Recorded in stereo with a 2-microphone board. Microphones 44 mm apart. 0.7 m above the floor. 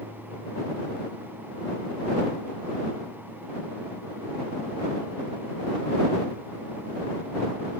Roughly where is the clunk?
No clunk in this recording.